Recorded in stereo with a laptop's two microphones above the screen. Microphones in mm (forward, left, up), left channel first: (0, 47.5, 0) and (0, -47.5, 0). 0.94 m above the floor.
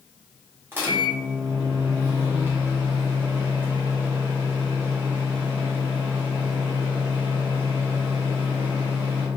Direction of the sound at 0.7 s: 20° right (ahead or behind).